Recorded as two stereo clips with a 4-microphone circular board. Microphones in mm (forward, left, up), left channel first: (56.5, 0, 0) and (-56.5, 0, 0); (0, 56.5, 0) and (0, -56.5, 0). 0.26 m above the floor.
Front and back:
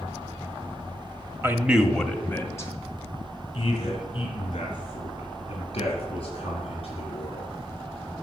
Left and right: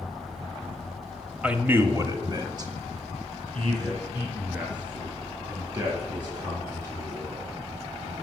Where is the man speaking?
155° right, 0.9 m; by 7.5 s 35° right, 5 m.